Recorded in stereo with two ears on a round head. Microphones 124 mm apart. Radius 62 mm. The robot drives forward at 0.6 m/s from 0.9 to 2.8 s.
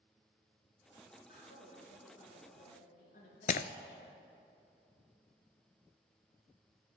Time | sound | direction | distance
1.3 | a woman speaking | 70° left (ahead or behind) | 6 m
3.5 | breaking glass | 60° left (ahead or behind) | 0.6 m